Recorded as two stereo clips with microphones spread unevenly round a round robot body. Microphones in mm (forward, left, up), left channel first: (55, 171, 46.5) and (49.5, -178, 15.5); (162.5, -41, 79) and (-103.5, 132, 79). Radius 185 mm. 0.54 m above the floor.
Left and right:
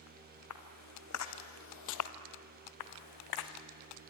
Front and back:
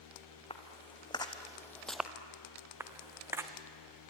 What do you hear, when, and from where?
0.5 s footsteps: 40° left, 3 m; by 2.1 s 65° left, 0.9 m
2.8 s footsteps: 65° left, 2 m